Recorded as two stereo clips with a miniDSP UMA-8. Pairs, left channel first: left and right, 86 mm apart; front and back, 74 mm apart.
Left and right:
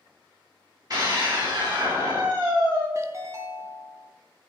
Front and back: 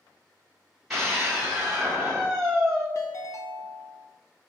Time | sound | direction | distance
0.9 | a scream | 95° right | 1.4 m
3.0 | a ringtone | 40° right | 0.6 m